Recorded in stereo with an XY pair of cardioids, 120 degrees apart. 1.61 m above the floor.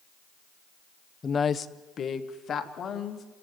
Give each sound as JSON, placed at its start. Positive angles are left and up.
{"t": 1.2, "sound": "a woman speaking", "azimuth_deg": 25, "distance_m": 0.7}